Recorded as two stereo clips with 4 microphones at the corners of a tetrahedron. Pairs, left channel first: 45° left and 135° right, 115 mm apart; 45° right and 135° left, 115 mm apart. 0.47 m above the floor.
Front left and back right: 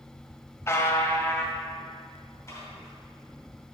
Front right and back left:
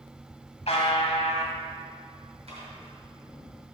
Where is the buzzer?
20° right, 1.0 m.